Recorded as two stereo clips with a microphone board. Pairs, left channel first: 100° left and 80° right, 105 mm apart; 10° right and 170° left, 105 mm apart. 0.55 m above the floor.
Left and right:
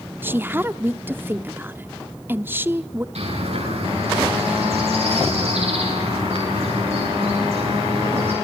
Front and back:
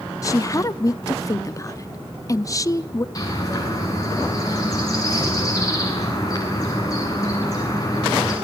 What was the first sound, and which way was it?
A woman speaking, 30° right.